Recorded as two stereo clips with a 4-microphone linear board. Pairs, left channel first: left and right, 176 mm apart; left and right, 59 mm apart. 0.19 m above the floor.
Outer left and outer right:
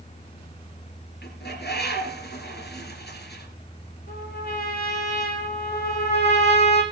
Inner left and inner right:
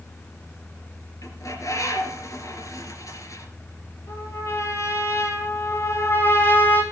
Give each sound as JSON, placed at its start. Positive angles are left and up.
{"t": 1.2, "sound": "a bird", "side_deg": 70, "distance_m": 3.5}
{"t": 4.1, "sound": "a trumpet", "side_deg": 60, "distance_m": 5.0}
{"t": 5.7, "sound": "a trumpet", "side_deg": 35, "distance_m": 2.5}